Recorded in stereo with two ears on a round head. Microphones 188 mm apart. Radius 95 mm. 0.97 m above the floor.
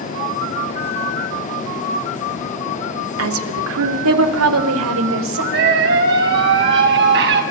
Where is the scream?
60° right (ahead or behind), 7.5 m.